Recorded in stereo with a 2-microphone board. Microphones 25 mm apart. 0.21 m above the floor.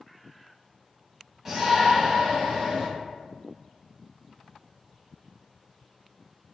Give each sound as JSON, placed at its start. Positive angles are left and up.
{"t": 1.4, "sound": "a shout", "side_deg": -15, "distance_m": 1.3}